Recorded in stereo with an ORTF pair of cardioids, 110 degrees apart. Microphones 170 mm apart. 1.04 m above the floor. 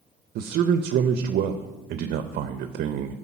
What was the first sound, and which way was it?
A man speaking, 65° right.